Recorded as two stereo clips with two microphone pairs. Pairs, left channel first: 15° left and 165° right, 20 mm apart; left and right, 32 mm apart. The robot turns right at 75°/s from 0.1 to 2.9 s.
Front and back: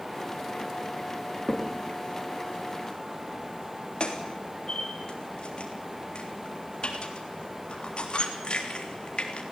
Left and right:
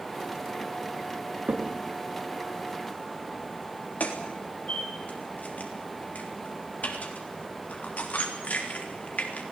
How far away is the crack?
About 3.5 m.